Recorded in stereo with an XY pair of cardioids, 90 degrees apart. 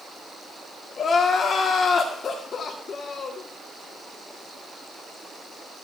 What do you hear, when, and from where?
1.0 s crying: 60° left, 1.6 m